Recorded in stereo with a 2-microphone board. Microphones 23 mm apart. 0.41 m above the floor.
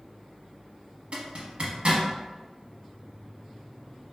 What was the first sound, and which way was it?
A zipper, 60° right (ahead or behind).